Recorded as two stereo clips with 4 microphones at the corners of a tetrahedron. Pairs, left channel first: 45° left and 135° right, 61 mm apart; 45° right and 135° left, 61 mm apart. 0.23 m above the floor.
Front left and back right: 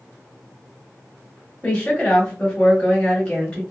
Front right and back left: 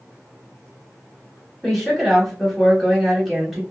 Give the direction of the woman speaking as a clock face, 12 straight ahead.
11 o'clock.